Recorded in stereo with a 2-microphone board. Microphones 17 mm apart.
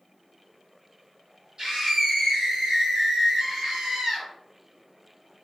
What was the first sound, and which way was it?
A scream, 45° right (ahead or behind).